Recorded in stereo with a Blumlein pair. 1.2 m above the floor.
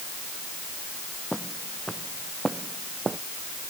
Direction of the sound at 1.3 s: Straight ahead.